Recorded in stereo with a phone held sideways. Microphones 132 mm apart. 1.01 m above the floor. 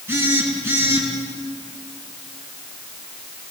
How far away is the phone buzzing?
About 5 m.